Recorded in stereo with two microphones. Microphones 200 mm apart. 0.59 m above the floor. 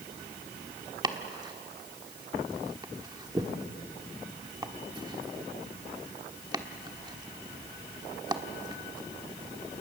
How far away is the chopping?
About 1.3 m.